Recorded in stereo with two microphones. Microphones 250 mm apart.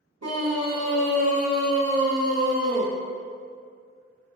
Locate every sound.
0.2 s a scream: 85° right, 0.7 m; by 2.9 s 10° left (ahead or behind), 1.2 m